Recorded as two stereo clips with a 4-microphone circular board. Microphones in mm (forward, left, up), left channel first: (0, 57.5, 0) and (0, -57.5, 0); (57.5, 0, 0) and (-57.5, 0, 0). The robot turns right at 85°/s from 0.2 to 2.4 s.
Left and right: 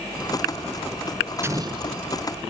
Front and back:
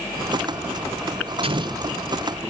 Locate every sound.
1.4 s an explosion: 155° right, 0.5 m; by 2.3 s 85° right, 0.5 m